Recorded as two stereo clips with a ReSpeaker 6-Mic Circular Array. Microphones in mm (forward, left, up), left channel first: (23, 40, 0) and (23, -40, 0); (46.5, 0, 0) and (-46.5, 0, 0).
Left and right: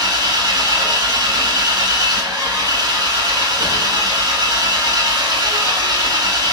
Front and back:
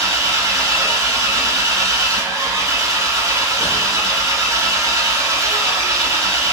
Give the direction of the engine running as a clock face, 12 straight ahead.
4 o'clock.